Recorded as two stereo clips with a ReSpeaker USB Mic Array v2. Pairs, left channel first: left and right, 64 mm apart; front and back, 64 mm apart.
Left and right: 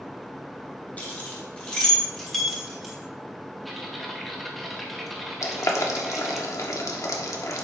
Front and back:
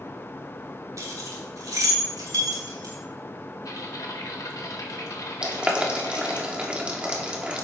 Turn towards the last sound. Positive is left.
turn(degrees=110)